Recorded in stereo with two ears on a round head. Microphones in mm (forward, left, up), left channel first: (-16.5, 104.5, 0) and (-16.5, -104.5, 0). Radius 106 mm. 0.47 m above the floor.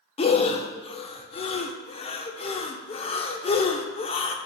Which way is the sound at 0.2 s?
25° left (ahead or behind).